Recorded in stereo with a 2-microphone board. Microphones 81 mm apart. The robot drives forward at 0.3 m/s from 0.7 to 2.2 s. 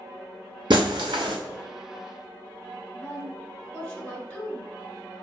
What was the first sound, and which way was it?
Breaking glass, 70° right (ahead or behind).